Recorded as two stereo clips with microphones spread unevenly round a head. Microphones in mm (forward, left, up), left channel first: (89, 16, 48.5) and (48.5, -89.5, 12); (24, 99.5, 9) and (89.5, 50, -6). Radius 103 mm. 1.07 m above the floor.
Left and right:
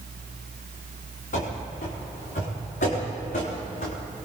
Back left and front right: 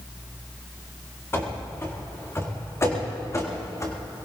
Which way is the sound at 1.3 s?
85° left.